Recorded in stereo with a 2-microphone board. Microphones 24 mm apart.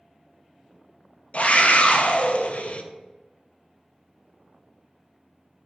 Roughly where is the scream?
Left.